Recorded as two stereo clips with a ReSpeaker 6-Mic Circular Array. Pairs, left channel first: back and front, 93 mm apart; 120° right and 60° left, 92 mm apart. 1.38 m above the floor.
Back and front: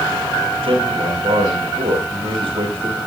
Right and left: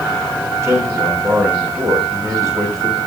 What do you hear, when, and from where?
0.6 s a man speaking: straight ahead, 7 m